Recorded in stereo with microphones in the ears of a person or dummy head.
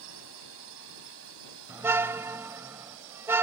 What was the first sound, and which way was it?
A drone, 75° right (ahead or behind).